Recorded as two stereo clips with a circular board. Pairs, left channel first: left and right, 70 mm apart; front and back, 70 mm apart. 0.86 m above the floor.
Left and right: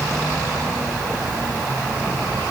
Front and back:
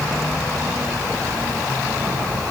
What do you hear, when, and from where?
Only background noise.